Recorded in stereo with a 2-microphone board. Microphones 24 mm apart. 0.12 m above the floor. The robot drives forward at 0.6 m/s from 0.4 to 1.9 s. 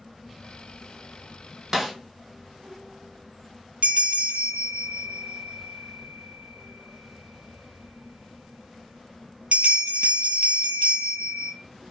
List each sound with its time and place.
1.7 s a snare drum: 15° right (ahead or behind), 0.6 m
3.8 s a bell: 65° right (ahead or behind), 0.7 m